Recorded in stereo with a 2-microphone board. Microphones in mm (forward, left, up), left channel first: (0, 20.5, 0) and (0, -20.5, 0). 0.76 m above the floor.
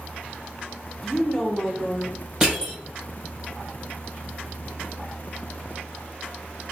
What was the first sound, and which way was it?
A woman speaking, 10° left (ahead or behind).